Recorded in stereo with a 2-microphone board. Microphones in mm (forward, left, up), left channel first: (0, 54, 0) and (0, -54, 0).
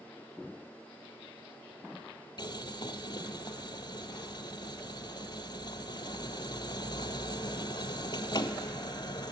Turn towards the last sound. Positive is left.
turn(degrees=45)  # may be behind; listen again after turning